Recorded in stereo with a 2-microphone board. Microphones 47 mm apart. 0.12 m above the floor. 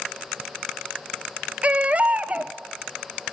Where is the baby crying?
30° right (ahead or behind), 0.6 m.